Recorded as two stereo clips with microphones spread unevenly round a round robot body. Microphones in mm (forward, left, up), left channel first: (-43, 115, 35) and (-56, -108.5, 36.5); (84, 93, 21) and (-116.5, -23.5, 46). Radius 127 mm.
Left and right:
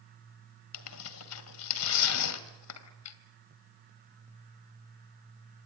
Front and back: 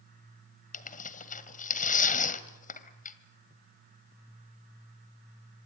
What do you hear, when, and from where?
0.7 s tearing paper: 90° left, 1.9 m